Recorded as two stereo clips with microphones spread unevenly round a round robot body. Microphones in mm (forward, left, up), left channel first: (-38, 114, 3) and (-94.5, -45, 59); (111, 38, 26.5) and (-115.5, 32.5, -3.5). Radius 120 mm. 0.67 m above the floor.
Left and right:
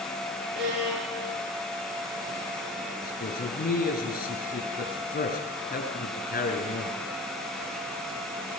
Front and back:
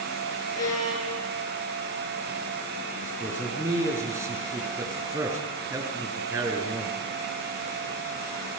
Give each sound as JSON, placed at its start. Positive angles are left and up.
{"t": 0.6, "sound": "a violin", "azimuth_deg": -75, "distance_m": 7.0}
{"t": 3.0, "sound": "a man speaking", "azimuth_deg": 105, "distance_m": 7.0}